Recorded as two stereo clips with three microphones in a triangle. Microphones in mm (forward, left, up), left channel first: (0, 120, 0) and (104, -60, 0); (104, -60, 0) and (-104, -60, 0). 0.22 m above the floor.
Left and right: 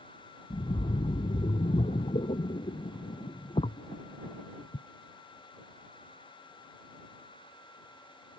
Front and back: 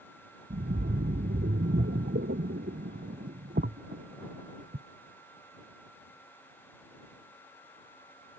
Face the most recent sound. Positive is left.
turn(degrees=175)